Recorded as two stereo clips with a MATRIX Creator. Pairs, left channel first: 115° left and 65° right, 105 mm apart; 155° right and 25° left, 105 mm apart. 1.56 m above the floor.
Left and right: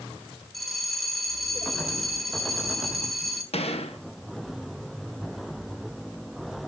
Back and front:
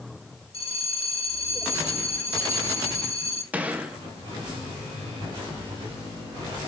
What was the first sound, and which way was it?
A bell, 160° right.